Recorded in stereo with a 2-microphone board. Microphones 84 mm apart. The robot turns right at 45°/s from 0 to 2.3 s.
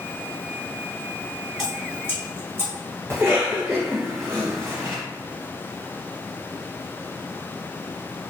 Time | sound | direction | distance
1.6 | dripping | centre (ahead or behind) | 1.5 m
3.1 | a cough | 30° right (ahead or behind) | 1.3 m